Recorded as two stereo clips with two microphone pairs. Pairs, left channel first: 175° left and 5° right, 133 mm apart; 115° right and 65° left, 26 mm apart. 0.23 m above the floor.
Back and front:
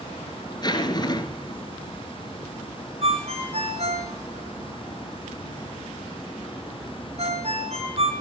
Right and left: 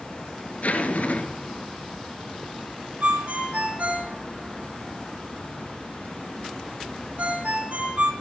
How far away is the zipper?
About 3.5 m.